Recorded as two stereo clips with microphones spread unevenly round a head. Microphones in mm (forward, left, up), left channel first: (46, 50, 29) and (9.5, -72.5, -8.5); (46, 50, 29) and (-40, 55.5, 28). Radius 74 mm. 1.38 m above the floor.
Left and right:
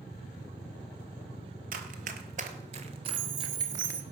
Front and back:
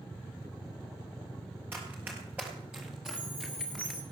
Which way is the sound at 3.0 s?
80° right.